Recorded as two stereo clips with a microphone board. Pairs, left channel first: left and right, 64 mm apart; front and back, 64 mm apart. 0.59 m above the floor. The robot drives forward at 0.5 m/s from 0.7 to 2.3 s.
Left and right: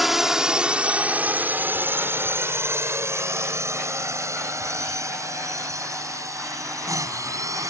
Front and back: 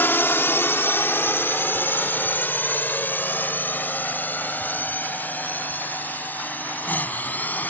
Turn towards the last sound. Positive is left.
turn(degrees=-60)